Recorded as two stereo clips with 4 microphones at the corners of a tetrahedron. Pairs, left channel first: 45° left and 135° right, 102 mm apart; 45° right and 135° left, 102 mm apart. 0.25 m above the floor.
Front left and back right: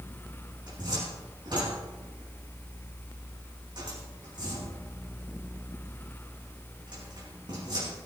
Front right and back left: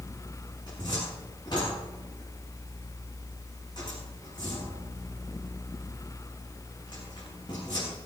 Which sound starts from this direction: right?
A cupboard door, at 0.7 s.